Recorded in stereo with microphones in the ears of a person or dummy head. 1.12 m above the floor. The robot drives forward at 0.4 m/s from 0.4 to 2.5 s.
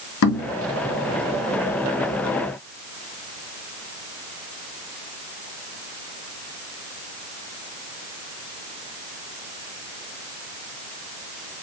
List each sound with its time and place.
0.2 s knocking: 80° left, 1.4 m